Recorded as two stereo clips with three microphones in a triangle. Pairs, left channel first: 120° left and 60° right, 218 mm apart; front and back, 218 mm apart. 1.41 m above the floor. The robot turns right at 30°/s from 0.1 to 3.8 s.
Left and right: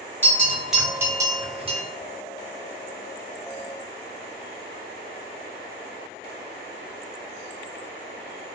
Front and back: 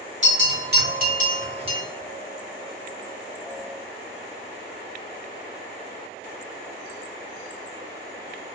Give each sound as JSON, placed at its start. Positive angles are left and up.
{"t": 0.2, "sound": "a bell", "azimuth_deg": -165, "distance_m": 0.8}